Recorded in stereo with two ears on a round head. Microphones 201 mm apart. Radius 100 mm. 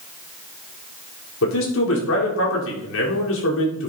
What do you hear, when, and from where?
1.4 s a man speaking: 65° left (ahead or behind), 4 m